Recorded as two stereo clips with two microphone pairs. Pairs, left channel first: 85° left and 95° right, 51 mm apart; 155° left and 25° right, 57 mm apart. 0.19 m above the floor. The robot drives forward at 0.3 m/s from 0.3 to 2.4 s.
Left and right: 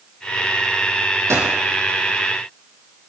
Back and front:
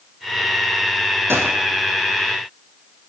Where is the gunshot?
70° right, 4.5 m.